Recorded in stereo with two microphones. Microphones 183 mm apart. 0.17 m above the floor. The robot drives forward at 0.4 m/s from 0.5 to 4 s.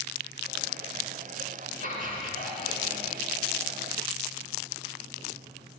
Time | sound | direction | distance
1.8 | laughter | 50° right (ahead or behind) | 2.5 m